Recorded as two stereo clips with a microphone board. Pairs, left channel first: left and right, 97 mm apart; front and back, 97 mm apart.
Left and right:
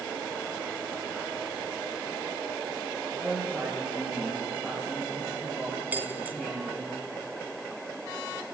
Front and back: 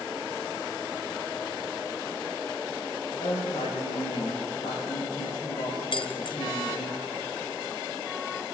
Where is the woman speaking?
15° left, 8.5 m.